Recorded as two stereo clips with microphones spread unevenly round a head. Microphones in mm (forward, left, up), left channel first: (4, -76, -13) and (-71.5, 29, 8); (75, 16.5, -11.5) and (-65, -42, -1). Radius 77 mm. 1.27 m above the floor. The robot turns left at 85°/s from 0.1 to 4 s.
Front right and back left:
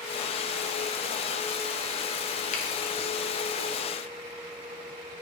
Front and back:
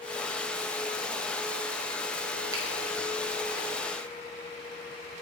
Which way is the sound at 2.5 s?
85° right.